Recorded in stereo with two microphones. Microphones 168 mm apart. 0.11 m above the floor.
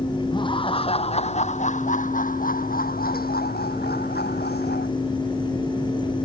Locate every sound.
0.3 s laughter: 30° left (ahead or behind); by 4.9 s 75° left (ahead or behind)